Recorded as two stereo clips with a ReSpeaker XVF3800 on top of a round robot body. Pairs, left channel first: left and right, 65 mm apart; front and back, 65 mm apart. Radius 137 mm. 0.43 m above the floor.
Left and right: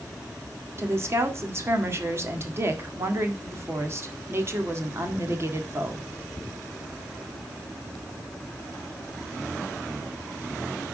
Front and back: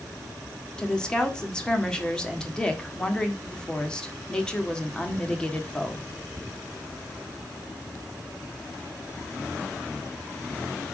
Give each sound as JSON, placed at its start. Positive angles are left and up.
{"t": 0.8, "sound": "a woman speaking", "azimuth_deg": -70, "distance_m": 1.8}